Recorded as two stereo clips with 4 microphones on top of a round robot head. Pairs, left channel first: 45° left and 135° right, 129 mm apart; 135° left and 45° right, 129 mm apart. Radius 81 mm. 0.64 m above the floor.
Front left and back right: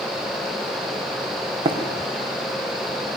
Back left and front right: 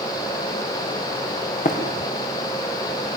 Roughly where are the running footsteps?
Behind.